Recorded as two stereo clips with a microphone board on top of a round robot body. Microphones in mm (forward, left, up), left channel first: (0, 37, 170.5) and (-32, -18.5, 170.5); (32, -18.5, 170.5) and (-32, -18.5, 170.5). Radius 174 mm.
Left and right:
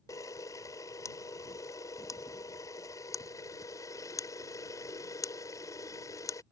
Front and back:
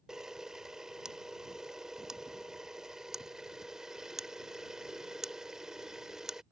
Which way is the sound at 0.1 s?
100° left.